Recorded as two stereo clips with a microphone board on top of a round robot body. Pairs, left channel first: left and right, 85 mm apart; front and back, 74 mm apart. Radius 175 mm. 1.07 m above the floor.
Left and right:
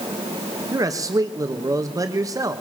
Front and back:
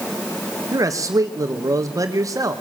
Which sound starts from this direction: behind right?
A man speaking, at 0.7 s.